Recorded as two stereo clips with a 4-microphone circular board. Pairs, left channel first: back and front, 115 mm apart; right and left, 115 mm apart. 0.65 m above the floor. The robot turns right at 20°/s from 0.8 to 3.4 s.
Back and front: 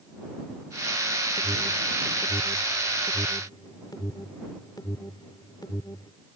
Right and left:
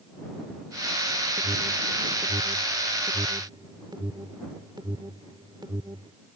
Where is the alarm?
90° left; by 6.1 s 130° left.